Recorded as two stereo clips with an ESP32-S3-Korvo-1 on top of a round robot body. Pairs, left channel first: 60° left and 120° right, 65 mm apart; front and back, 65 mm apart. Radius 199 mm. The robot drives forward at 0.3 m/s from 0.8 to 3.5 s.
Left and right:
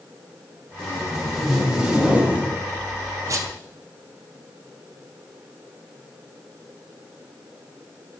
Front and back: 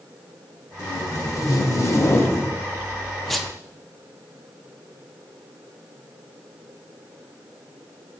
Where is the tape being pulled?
30° right, 0.9 m; by 3.5 s 95° right, 0.5 m.